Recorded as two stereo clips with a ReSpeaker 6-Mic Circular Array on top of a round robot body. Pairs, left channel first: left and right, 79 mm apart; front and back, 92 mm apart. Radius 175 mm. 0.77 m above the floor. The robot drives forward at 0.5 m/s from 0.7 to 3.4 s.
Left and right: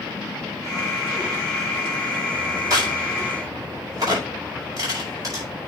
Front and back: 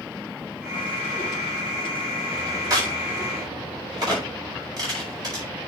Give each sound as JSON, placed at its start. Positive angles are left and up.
{"t": 2.7, "sound": "a crack", "azimuth_deg": -130, "distance_m": 6.0}